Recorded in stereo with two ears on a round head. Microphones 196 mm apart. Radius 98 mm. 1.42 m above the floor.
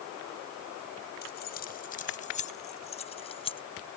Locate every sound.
1.2 s keys jangling: 50° left (ahead or behind); by 3.6 s 25° left (ahead or behind)